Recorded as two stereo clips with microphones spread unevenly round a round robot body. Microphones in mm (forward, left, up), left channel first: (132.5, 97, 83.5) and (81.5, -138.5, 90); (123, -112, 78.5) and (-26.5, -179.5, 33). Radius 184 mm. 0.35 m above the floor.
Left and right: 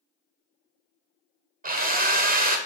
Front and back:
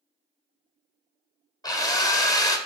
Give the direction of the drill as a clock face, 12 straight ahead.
2 o'clock.